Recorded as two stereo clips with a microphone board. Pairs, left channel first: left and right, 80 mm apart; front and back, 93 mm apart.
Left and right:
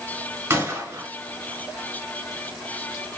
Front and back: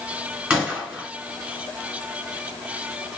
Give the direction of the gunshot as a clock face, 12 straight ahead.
4 o'clock.